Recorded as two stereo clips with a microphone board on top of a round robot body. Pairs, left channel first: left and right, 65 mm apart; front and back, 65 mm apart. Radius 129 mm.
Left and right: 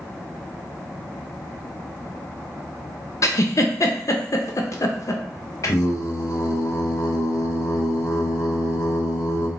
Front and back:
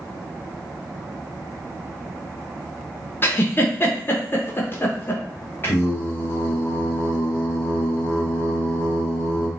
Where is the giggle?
55° left, 0.6 m.